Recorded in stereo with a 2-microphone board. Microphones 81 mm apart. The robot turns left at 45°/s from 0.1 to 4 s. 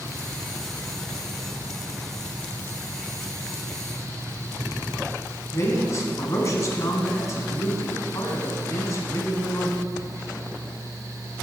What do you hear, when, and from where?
5.5 s a man speaking: 40° left (ahead or behind), 1.3 m